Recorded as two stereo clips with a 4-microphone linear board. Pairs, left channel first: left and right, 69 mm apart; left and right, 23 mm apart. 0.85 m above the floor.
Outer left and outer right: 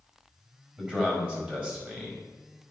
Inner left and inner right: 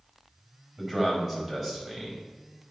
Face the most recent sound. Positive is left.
turn(degrees=-20)  # may be behind; listen again after turning